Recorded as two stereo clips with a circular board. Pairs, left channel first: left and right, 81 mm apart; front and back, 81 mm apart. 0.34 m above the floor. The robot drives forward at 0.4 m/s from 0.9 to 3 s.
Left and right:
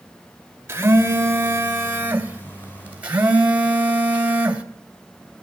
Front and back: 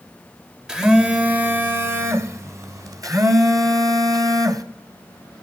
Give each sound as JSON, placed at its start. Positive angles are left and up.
{"t": 0.7, "sound": "a phone buzzing", "azimuth_deg": -110, "distance_m": 1.0}